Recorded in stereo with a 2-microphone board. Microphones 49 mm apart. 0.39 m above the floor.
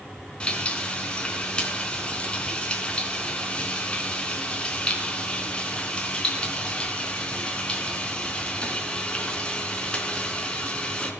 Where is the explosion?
I don't hear an explosion.